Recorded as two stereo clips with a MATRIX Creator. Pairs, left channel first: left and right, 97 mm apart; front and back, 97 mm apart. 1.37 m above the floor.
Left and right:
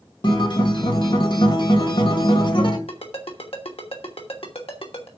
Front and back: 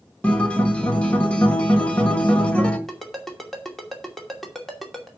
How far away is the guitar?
About 1.8 m.